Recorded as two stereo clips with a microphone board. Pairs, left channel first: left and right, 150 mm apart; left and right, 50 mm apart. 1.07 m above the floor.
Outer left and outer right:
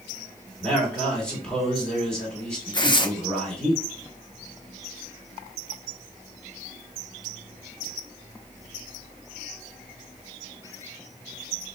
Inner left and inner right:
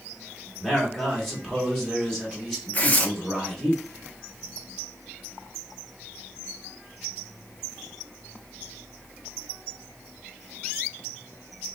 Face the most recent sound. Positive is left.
turn(degrees=30)  # may be behind; listen again after turning